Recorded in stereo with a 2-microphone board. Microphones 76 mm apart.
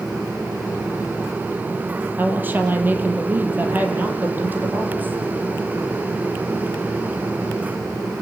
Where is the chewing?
No chewing in this recording.